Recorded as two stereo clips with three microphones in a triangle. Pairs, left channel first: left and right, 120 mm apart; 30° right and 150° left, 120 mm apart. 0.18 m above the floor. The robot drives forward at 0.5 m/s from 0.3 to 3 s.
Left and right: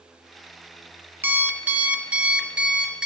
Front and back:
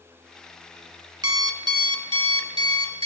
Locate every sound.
1.2 s an alarm clock: 155° right, 0.7 m; by 3.1 s 170° right, 1.4 m